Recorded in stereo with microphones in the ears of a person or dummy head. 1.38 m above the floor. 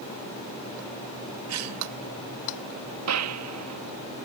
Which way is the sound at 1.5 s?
80° right.